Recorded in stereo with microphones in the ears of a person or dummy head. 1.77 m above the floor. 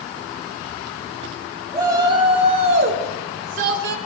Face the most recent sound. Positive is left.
turn(degrees=-70)  # may be behind; listen again after turning